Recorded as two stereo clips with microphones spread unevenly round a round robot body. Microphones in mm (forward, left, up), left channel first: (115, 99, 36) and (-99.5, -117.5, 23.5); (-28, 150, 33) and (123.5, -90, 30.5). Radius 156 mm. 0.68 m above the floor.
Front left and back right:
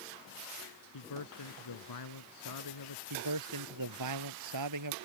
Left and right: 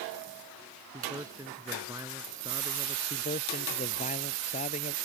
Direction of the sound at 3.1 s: 170° right.